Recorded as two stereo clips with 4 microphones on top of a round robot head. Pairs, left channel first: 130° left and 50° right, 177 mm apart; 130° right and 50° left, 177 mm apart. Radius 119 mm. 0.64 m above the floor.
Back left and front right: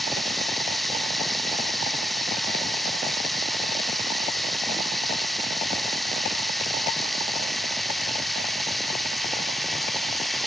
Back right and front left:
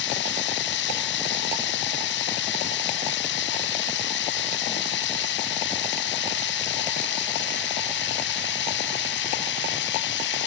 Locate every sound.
0.0 s running water: 140° right